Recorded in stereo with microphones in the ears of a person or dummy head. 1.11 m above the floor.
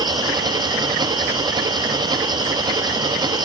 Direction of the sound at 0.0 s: 25° right (ahead or behind).